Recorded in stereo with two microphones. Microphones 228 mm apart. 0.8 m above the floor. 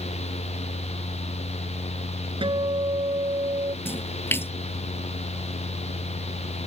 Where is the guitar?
20° right (ahead or behind).